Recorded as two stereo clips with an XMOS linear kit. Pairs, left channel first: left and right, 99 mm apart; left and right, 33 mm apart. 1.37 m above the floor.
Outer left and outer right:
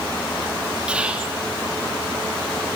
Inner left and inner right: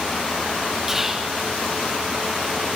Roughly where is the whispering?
Centre.